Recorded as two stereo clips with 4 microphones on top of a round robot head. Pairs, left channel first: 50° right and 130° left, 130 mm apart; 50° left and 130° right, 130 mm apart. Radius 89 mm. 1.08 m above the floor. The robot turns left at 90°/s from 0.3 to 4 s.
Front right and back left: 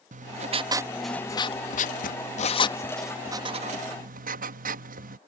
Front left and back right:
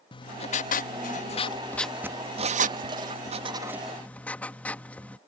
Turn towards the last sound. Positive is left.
turn(degrees=130)